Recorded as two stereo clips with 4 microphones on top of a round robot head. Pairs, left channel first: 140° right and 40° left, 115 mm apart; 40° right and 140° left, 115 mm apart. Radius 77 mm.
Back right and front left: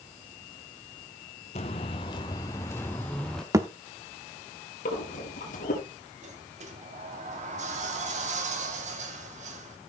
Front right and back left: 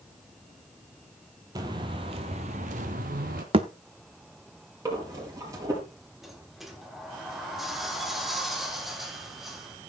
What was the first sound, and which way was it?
Footsteps, 165° right.